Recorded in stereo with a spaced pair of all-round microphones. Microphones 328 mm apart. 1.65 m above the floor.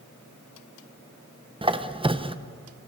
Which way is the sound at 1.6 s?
15° right (ahead or behind).